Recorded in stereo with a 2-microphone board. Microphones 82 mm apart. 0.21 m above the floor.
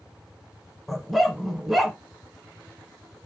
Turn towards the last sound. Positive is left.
turn(degrees=0)  # may be behind; listen again after turning